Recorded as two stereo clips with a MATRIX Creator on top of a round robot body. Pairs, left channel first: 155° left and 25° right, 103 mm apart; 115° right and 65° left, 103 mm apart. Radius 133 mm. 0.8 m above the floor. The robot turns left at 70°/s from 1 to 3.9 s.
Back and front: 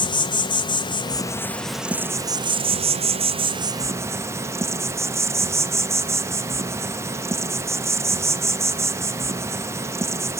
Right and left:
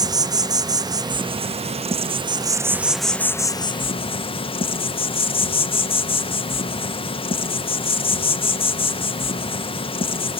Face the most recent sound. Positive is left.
turn(degrees=-85)